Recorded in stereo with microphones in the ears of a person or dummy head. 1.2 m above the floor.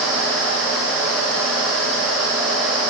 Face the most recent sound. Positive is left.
turn(degrees=5)  # may be behind; listen again after turning